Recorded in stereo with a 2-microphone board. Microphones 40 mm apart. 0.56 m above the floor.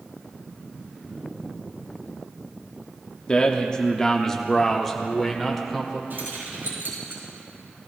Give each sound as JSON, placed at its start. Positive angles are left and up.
{"t": 3.3, "sound": "a man speaking", "side_deg": 25, "distance_m": 0.9}
{"t": 6.1, "sound": "keys jangling", "side_deg": -60, "distance_m": 4.5}